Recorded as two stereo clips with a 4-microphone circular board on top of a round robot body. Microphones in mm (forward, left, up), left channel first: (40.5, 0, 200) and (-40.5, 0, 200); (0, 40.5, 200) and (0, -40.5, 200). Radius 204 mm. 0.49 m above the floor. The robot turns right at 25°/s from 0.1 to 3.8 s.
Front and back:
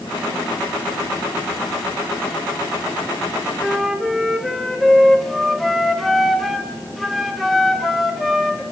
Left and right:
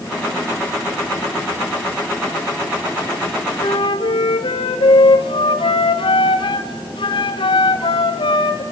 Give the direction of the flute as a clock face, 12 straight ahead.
9 o'clock.